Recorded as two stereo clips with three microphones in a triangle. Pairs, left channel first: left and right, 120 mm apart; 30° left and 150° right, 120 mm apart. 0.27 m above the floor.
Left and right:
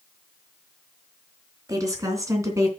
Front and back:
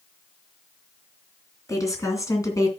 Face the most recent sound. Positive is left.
turn(degrees=-30)